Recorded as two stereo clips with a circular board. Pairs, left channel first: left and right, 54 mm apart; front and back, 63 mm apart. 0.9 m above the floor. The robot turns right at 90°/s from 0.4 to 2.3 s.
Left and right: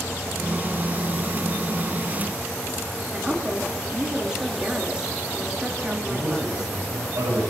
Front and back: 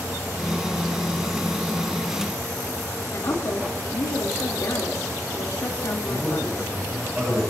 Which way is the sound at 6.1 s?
100° right.